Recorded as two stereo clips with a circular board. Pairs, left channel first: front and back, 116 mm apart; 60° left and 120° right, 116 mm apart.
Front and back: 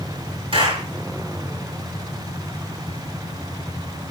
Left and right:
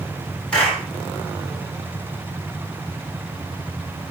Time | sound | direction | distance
0.5 | a clap | 140° left | 5.5 m